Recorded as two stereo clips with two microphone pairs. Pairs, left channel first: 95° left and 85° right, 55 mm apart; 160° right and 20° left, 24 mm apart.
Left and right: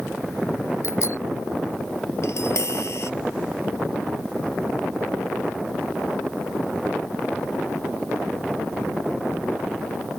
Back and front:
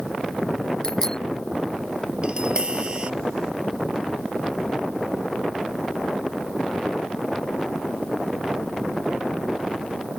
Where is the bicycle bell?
130° left.